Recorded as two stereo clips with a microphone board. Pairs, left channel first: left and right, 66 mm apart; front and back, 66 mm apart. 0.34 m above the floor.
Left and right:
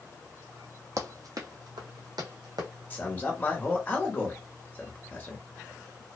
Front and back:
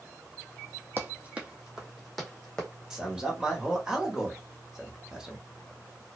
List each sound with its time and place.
1.0 s running footsteps: 125° right, 0.9 m; by 2.7 s 80° right, 1.3 m
2.9 s a man speaking: 110° left, 1.0 m